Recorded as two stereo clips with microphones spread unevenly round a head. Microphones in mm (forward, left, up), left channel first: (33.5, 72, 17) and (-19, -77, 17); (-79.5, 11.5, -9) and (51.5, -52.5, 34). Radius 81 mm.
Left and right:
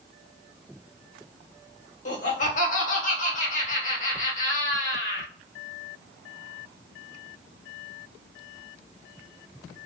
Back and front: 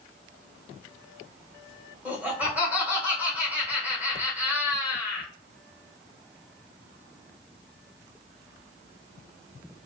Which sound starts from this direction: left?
Laughter, at 2.0 s.